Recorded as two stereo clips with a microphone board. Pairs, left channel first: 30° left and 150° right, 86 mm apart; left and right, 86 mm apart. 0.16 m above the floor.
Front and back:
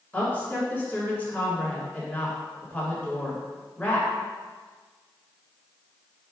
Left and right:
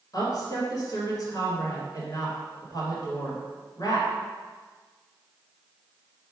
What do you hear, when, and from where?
0.1 s a woman speaking: 95° left, 1.6 m